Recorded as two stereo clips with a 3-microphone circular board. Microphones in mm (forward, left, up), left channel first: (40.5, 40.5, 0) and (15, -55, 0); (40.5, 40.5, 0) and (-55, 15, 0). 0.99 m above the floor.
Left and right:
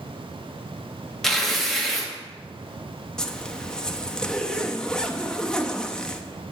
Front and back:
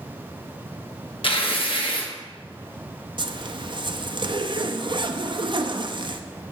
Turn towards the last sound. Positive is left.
turn(degrees=155)